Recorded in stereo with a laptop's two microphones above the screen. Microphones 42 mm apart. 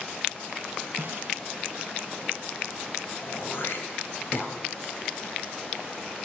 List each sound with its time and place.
1.0 s a snare drum: 60° right (ahead or behind), 1.9 m
3.2 s throat clearing: 60° left (ahead or behind), 2.5 m